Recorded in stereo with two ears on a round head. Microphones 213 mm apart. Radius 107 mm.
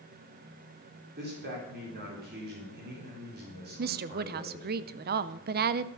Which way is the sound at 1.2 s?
45° right (ahead or behind).